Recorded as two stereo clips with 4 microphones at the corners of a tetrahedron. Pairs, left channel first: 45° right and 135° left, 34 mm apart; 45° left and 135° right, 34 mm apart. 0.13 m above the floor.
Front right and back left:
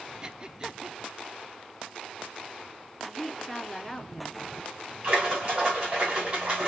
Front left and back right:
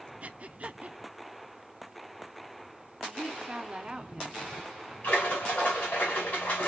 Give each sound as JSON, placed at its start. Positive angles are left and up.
{"t": 0.2, "sound": "breathing", "azimuth_deg": -170, "distance_m": 0.5}
{"t": 3.0, "sound": "a woman speaking", "azimuth_deg": -115, "distance_m": 1.4}
{"t": 5.0, "sound": "a splash", "azimuth_deg": 80, "distance_m": 4.5}